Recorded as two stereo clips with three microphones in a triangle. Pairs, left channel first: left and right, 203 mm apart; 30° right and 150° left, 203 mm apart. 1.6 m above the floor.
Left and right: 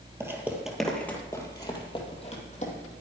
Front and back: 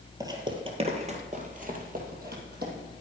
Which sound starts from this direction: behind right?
Footsteps, at 0.2 s.